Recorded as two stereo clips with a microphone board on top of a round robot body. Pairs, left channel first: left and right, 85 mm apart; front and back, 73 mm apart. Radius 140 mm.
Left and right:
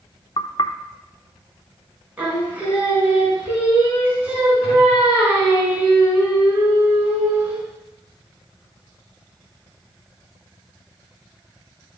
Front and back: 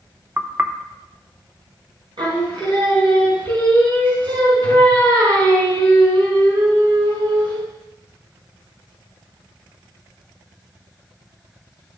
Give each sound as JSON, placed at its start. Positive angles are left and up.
{"t": 0.4, "sound": "knocking", "azimuth_deg": 115, "distance_m": 0.9}
{"t": 2.2, "sound": "singing", "azimuth_deg": -170, "distance_m": 4.5}